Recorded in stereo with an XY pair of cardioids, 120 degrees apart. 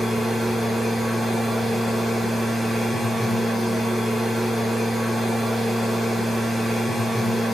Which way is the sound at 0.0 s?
5° right.